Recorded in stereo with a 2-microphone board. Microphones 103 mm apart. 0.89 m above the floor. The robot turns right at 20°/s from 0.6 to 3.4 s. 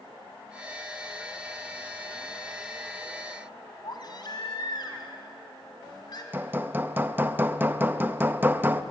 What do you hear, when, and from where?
3.8 s a baby crying: 50° left (ahead or behind), 2.5 m
6.3 s hammering: 20° right (ahead or behind), 0.7 m